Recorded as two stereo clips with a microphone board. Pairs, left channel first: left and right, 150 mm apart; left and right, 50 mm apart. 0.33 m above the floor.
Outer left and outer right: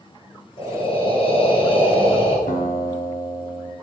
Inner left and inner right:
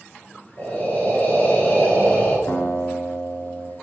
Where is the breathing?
35° left (ahead or behind), 1.5 m.